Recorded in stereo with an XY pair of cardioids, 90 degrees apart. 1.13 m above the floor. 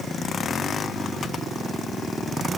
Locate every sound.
Only background noise.